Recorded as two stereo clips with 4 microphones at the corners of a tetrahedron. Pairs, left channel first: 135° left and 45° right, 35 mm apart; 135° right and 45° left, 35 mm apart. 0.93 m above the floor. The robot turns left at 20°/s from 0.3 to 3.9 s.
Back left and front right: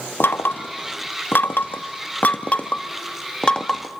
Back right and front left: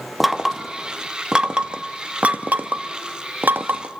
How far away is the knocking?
About 0.9 m.